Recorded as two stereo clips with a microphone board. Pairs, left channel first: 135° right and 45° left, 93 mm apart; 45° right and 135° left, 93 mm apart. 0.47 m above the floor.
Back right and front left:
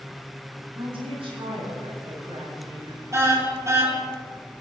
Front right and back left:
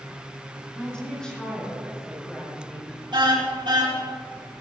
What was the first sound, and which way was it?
A woman speaking, 35° left.